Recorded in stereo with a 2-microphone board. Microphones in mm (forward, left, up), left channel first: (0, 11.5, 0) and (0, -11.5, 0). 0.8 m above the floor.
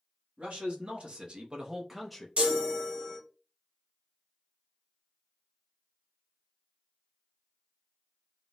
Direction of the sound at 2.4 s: 65° right (ahead or behind).